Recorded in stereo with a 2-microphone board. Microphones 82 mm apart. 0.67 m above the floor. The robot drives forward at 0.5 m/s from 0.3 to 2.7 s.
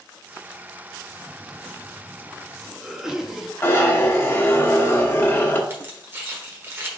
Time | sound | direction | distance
1.1 | a cough | 5° right (ahead or behind) | 0.8 m
3.6 | a zipper | 30° left (ahead or behind) | 1.0 m
5.7 | keys jangling | 30° right (ahead or behind) | 1.3 m